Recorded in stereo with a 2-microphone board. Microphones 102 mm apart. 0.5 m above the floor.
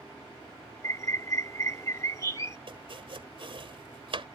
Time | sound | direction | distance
0.8 | a bird | 30° left (ahead or behind) | ?
2.7 | chopping | 60° right (ahead or behind) | ?